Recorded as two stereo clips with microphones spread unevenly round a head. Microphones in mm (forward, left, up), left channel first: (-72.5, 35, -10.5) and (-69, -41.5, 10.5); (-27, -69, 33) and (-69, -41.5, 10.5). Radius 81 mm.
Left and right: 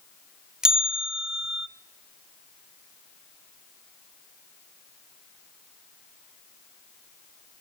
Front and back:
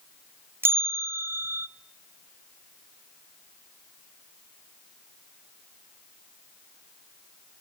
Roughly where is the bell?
Behind.